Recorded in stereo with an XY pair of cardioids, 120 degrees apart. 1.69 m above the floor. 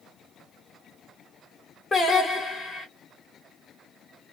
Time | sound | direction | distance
1.9 | singing | 25° left | 1.3 m